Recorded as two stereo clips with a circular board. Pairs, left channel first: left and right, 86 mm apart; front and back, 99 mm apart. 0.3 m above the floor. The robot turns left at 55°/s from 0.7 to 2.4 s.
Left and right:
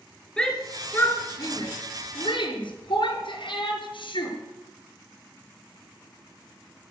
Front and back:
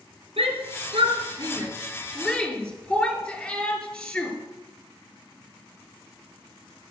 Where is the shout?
170° left, 5.5 m; by 4.3 s 75° left, 5.5 m.